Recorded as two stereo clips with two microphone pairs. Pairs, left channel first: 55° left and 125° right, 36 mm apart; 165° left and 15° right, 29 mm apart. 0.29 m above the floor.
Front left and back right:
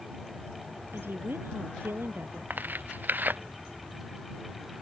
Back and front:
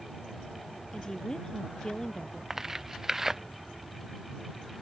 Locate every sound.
0.9 s a woman speaking: 130° right
2.5 s tearing paper: 95° right